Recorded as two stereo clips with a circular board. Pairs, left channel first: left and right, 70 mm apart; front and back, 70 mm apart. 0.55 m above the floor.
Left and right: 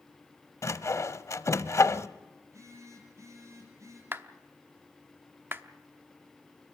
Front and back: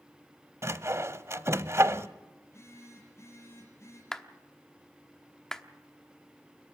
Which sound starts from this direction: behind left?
Sawing, at 0.6 s.